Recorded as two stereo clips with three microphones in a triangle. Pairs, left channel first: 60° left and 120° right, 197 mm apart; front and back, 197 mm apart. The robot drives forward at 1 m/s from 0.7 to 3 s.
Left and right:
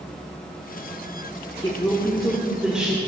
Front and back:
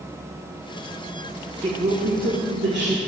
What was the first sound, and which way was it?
A woman speaking, 125° left.